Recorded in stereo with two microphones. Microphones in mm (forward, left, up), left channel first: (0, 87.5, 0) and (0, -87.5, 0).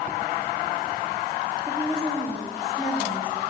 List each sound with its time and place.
1.7 s a woman speaking: 20° right (ahead or behind), 4 m; by 3.4 s 10° left (ahead or behind), 4.5 m